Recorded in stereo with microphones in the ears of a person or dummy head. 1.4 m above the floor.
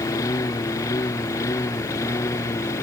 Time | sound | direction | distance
0.0 | a lawn mower | 15° left (ahead or behind) | ?